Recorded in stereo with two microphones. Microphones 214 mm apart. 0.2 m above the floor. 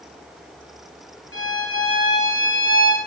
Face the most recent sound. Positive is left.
turn(degrees=75)  # may be behind; listen again after turning